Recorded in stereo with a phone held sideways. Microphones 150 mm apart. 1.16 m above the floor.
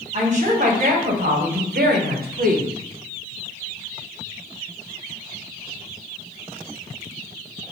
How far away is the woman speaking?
About 1.3 m.